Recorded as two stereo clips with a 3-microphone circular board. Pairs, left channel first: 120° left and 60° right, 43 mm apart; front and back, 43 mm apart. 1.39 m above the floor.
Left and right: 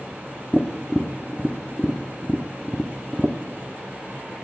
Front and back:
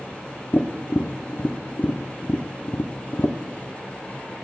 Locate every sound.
0.5 s tapping: 25° left, 0.8 m